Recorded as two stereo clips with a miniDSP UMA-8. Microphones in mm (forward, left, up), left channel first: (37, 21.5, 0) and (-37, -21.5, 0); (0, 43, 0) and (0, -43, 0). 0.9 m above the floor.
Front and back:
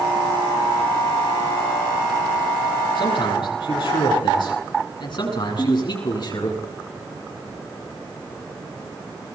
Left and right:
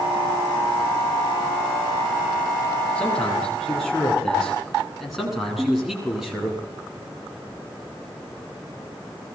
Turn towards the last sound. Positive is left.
turn(degrees=-15)